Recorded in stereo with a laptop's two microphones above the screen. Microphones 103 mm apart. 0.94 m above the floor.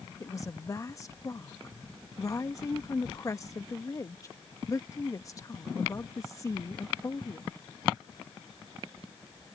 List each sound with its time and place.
0.2 s a woman speaking: 30° left (ahead or behind)